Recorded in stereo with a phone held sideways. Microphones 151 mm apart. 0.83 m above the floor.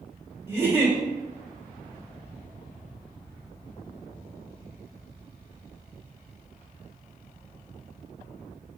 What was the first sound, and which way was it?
A giggle, 15° right (ahead or behind).